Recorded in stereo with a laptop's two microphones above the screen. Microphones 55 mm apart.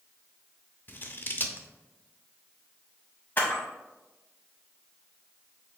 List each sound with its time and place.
0.9 s scissors: 35° left (ahead or behind), 0.5 m
3.4 s a camera shutter: 35° left (ahead or behind), 1.4 m